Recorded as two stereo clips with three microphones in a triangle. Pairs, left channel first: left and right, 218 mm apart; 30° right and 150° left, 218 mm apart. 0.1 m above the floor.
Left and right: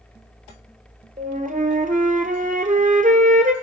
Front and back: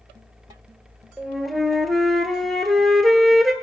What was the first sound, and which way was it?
A flute, 120° right.